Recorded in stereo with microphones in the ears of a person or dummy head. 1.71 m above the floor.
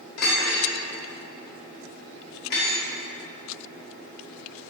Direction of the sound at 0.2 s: 60° left (ahead or behind).